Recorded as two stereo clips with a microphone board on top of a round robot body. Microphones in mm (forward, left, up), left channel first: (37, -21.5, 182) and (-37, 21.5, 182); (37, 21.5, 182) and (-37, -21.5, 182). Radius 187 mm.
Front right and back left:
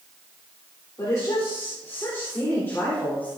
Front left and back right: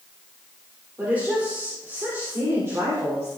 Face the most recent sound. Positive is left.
turn(degrees=-100)